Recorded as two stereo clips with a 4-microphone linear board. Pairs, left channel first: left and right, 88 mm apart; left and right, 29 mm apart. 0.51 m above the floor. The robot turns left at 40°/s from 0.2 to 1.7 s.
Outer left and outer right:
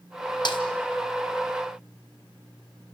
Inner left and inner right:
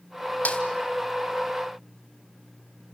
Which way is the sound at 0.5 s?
60° left (ahead or behind).